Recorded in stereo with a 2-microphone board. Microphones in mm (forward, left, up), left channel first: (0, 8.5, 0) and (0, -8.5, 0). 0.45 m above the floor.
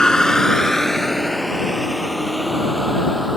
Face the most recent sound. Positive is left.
turn(degrees=-10)  # may be behind; listen again after turning